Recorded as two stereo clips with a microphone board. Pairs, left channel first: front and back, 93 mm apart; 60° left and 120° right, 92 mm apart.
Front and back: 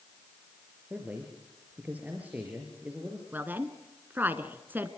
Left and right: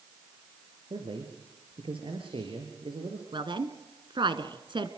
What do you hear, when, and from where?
0.9 s a man speaking: 110° right, 4.5 m
3.3 s a woman speaking: 115° right, 2 m